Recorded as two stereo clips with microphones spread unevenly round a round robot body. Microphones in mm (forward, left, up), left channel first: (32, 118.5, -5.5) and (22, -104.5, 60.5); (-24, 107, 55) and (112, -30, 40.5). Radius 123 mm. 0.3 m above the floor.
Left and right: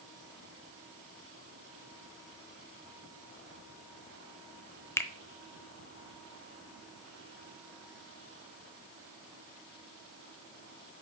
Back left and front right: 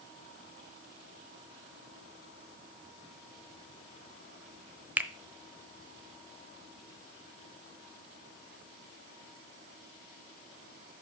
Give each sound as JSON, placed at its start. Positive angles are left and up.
{"t": 5.0, "sound": "a finger snap", "azimuth_deg": 30, "distance_m": 0.9}